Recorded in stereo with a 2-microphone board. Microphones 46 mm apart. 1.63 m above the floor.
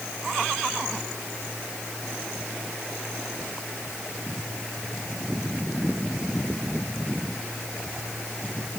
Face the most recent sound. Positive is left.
No sound to turn to.